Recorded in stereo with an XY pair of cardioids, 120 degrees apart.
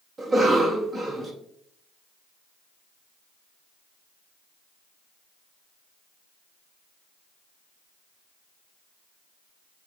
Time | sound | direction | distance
0.2 | a cough | 25° right | 1.1 m